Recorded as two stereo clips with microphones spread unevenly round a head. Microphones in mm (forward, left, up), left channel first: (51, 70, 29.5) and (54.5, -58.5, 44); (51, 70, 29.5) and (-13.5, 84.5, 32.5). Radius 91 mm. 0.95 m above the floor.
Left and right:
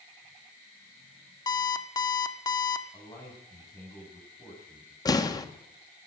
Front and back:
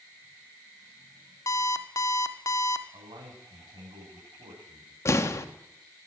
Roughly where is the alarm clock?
Ahead left.